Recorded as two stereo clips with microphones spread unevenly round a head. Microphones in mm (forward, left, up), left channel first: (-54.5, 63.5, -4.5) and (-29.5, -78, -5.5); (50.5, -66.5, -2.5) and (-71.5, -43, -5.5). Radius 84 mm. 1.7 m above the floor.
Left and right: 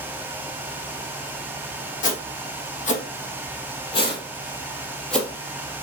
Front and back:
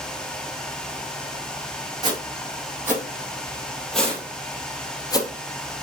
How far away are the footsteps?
About 3 m.